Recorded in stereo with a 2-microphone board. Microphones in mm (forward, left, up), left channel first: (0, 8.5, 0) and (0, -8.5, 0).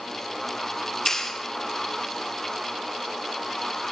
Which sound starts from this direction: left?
A clap, at 1.1 s.